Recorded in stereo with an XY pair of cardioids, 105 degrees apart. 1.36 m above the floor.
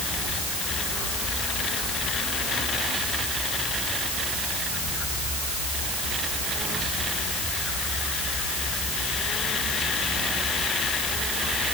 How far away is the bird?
No bird in this recording.